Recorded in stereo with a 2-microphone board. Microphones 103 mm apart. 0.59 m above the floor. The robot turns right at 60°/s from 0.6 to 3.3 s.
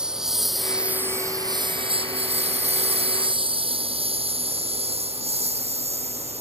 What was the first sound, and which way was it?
A lawn mower, 5° right (ahead or behind).